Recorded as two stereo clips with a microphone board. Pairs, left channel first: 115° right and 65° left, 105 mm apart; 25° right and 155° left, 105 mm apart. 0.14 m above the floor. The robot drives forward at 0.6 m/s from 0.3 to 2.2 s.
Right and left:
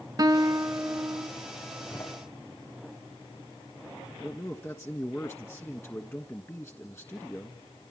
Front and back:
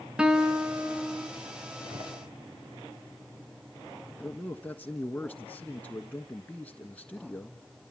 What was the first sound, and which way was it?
A guitar, 85° left.